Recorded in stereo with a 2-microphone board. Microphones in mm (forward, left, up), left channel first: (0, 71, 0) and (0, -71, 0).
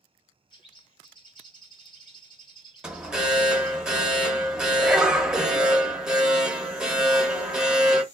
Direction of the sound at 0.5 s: 35° left (ahead or behind).